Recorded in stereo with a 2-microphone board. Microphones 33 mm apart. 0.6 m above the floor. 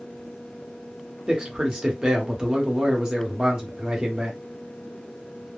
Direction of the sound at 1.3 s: 25° right (ahead or behind).